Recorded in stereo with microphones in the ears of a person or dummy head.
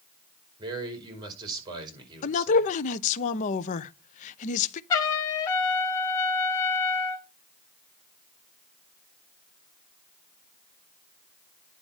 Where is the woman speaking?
40° left (ahead or behind), 0.8 m.